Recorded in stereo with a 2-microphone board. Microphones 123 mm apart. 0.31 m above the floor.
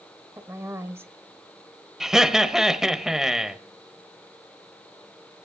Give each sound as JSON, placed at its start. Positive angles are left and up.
{"t": 0.4, "sound": "a woman speaking", "side_deg": -20, "distance_m": 1.3}
{"t": 2.0, "sound": "laughter", "side_deg": -5, "distance_m": 1.1}